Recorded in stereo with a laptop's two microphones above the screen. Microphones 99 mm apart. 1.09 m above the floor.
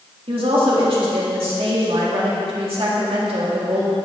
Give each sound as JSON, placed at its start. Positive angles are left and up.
{"t": 0.3, "sound": "a woman speaking", "side_deg": -70, "distance_m": 2.0}